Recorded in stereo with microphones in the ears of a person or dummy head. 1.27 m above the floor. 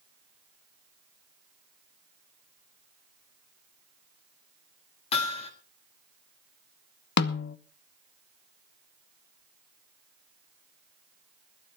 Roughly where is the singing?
No singing in this recording.